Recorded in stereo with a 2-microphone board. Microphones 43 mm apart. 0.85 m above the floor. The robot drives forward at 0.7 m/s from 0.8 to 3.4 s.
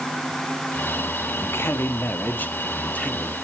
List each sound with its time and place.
1.4 s a man speaking: 70° left (ahead or behind), 0.9 m; by 3.3 s 30° left (ahead or behind), 1.7 m